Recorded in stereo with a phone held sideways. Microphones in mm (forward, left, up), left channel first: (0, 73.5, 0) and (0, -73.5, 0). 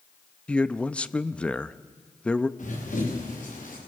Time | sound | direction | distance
0.5 | a man speaking | 5° left (ahead or behind) | 0.6 m
2.6 | running footsteps | 60° left (ahead or behind) | 8 m